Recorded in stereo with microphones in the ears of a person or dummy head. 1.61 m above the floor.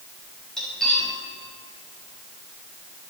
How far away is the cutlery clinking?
About 5.5 m.